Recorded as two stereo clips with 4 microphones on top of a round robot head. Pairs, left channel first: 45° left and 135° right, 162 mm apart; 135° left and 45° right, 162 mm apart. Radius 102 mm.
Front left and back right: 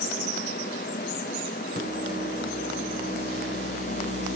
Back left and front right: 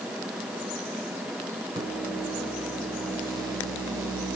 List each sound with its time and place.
1.8 s a microwave: 110° right, 5.5 m